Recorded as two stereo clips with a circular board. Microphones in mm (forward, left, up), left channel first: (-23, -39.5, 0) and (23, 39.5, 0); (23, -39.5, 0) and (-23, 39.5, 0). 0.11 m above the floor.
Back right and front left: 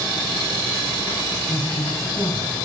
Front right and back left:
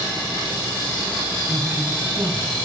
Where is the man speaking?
165° right, 2.0 m.